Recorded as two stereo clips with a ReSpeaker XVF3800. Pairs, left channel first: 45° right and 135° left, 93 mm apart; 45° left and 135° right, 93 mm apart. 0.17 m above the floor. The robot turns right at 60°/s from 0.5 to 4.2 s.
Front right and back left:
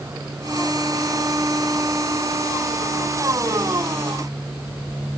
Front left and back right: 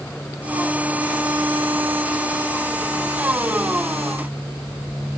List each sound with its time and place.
Only background noise.